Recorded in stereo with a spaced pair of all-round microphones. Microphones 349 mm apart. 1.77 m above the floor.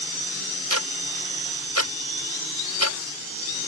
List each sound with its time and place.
0.7 s ticking: 50° left (ahead or behind)